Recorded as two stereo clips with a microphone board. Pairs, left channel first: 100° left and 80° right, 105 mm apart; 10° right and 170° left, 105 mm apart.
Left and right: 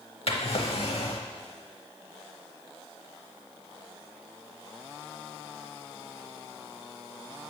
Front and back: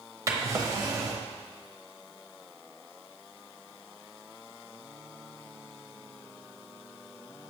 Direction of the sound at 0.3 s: 115° left.